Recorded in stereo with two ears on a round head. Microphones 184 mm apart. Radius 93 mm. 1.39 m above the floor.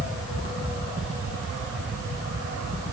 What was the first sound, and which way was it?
Only background noise.